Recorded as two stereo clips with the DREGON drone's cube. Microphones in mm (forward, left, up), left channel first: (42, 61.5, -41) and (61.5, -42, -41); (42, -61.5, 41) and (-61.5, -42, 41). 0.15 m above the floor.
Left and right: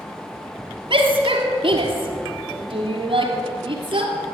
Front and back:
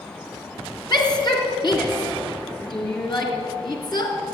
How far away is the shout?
About 3 m.